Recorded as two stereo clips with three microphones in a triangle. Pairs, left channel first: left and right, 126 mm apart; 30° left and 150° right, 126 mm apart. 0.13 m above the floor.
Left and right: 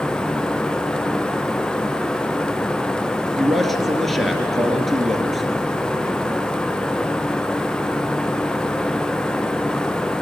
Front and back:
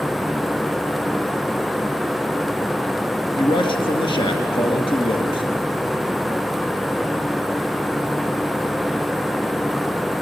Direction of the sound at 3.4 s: Straight ahead.